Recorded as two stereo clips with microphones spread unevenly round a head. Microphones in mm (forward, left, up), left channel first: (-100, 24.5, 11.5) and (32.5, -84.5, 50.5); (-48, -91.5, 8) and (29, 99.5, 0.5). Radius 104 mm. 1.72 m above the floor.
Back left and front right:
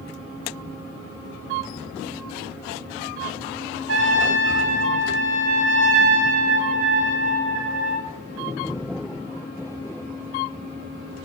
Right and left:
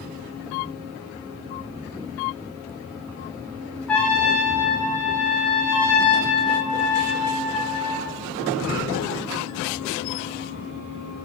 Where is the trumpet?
30° right, 2.5 m.